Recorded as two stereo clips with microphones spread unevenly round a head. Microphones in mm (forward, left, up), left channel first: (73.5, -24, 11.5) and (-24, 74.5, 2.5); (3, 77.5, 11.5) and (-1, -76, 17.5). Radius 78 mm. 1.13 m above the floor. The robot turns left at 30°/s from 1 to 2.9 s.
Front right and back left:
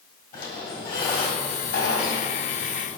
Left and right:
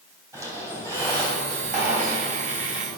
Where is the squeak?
20° right, 2.5 m; by 3.0 s 75° right, 2.5 m.